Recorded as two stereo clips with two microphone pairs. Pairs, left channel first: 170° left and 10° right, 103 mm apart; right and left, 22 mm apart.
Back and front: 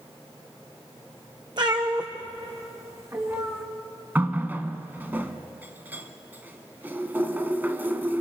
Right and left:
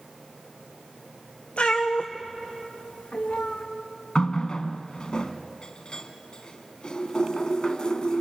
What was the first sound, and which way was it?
A cat meowing, 55° right.